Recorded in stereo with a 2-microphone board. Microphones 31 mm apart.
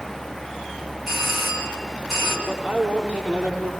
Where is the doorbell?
10° right (ahead or behind), 4.5 m.